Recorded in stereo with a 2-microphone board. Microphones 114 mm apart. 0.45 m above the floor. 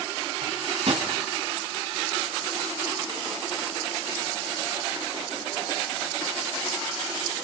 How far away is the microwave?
About 3 m.